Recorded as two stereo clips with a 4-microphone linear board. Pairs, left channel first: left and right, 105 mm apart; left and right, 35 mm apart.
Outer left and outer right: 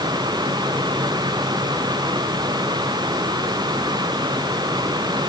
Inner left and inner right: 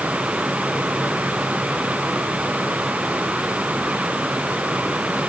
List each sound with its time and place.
Only background noise.